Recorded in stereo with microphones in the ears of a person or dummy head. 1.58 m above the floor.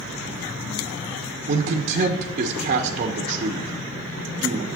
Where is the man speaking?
40° right (ahead or behind), 1.2 m.